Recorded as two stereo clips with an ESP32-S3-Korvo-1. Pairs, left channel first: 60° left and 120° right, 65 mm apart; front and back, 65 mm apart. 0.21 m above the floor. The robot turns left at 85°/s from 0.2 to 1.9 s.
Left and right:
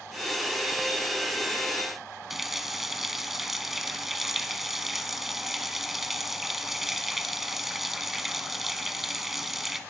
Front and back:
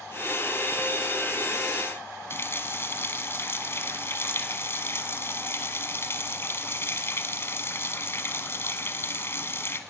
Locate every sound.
2.3 s a running tap: 35° right, 1.2 m